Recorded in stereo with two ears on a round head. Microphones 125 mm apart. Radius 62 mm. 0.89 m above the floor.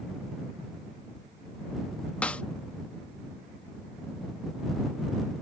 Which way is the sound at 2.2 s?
10° left (ahead or behind).